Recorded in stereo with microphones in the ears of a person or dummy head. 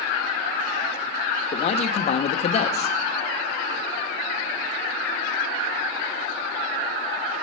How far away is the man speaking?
About 0.9 m.